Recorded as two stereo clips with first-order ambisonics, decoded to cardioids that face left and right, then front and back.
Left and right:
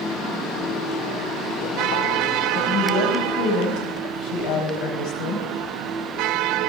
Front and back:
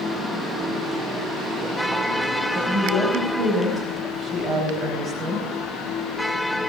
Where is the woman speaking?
115° left, 4 m.